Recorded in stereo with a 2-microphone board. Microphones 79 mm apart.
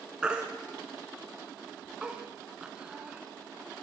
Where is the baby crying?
10° right (ahead or behind), 1.3 m.